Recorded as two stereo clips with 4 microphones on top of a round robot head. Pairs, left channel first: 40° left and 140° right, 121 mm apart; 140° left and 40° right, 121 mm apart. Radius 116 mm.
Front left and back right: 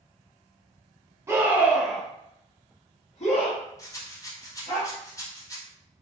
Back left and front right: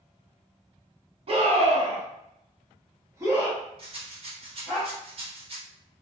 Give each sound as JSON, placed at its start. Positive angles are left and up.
{"t": 1.3, "sound": "a scream", "azimuth_deg": -70, "distance_m": 1.3}
{"t": 3.8, "sound": "a rattle", "azimuth_deg": -20, "distance_m": 1.2}